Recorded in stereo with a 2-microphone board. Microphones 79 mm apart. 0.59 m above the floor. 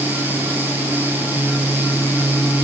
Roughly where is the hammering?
I don't hear hammering.